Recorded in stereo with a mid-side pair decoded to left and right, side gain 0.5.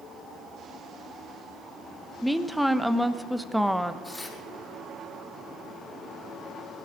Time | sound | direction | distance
2.2 | a woman speaking | straight ahead | 1.0 m
4.0 | tearing paper | 15° left | 5.5 m